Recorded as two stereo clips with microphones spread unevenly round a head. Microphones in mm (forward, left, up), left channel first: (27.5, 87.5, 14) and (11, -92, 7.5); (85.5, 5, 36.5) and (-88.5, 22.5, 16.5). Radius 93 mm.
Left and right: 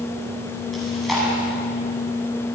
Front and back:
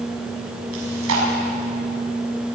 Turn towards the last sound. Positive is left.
turn(degrees=175)